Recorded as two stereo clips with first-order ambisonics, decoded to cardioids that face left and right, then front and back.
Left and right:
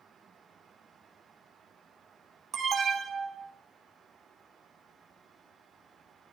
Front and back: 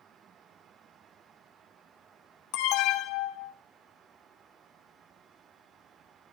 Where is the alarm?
25° right, 1.7 m.